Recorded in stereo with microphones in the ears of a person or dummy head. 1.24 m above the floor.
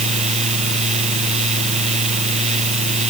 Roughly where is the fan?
Right.